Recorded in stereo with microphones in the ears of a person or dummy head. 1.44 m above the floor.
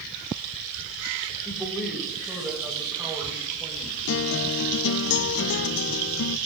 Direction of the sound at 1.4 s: 5° left (ahead or behind).